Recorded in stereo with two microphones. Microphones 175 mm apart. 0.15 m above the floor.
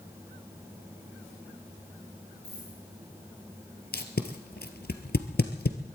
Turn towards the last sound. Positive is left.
turn(degrees=70)  # may be behind; listen again after turning